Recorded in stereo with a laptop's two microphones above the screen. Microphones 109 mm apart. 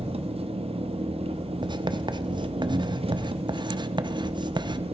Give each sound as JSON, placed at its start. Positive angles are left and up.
{"t": 0.0, "sound": "an engine running", "side_deg": -65, "distance_m": 0.7}
{"t": 1.6, "sound": "writing", "side_deg": -45, "distance_m": 0.6}